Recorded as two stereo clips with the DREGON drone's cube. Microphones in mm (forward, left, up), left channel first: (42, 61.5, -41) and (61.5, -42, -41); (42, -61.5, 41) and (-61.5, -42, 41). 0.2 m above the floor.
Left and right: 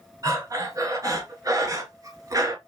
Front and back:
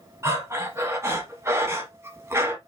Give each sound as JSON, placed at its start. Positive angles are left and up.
{"t": 0.2, "sound": "breathing", "azimuth_deg": -130, "distance_m": 1.0}